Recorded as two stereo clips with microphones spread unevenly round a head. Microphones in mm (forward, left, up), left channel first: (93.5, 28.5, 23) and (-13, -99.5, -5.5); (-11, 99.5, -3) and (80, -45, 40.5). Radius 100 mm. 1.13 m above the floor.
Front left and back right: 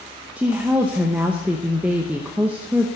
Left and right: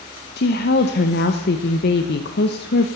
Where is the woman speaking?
145° left, 0.8 m.